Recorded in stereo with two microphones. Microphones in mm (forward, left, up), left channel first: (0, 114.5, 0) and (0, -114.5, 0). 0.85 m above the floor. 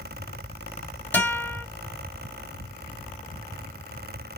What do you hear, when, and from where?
1.1 s a guitar: 10° left (ahead or behind), 3 m